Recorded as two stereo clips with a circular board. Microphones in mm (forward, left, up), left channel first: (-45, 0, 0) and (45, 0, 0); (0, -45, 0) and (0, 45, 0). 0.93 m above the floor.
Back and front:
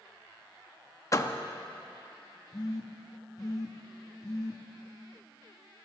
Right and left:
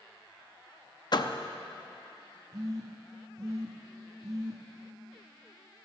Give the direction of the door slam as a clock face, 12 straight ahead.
4 o'clock.